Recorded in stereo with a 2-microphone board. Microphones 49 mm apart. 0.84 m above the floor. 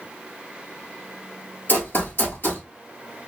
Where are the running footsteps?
45° left (ahead or behind), 1.1 m.